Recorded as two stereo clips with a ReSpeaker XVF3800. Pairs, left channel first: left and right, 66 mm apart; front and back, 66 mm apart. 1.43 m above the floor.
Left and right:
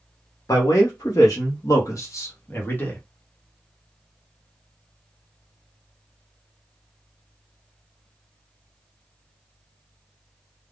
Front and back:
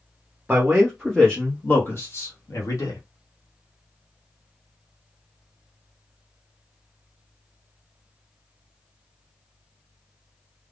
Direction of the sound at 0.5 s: 110° left.